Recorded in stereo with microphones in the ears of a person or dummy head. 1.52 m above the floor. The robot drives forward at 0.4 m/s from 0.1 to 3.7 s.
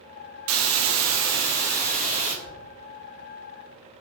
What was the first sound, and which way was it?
A hiss, 75° right (ahead or behind).